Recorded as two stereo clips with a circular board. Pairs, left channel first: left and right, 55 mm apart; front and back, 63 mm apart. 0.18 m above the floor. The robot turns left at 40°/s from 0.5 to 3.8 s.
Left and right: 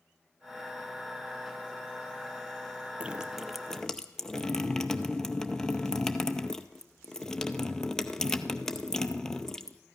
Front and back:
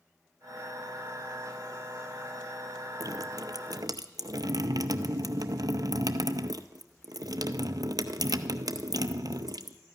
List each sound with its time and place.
3.0 s dripping: 160° right, 0.6 m; by 9.8 s 170° left, 0.6 m